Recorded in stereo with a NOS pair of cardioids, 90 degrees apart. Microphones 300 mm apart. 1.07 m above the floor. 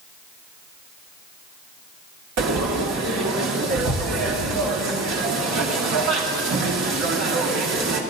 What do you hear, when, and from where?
2.4 s frying: 60° right, 2.0 m